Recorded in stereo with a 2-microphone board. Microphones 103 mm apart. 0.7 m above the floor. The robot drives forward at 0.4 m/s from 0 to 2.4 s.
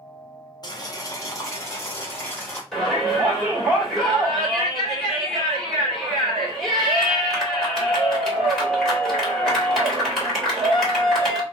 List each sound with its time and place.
0.6 s boiling: 40° left (ahead or behind), 0.6 m; by 2.6 s 20° left (ahead or behind), 1.1 m
2.7 s a shout: 5° left (ahead or behind), 1.8 m